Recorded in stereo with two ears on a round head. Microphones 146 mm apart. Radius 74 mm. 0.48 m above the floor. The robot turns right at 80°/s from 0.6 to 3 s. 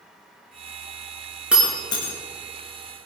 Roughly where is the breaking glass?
Centre.